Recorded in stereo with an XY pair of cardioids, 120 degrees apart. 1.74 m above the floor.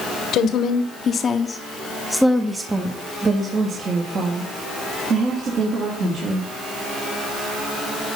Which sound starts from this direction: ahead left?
A woman speaking, at 0.3 s.